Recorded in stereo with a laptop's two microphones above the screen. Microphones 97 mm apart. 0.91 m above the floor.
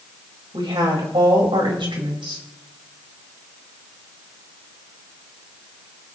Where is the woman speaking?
60° right (ahead or behind), 4 m.